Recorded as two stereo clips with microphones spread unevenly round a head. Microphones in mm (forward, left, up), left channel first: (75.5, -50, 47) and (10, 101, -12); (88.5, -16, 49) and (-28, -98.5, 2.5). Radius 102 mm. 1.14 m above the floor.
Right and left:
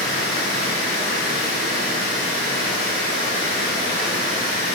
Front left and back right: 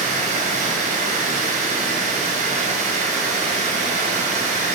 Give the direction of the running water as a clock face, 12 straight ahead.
3 o'clock.